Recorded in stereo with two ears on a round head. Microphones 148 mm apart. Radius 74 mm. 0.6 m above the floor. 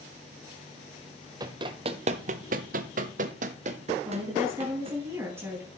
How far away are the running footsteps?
About 1.1 m.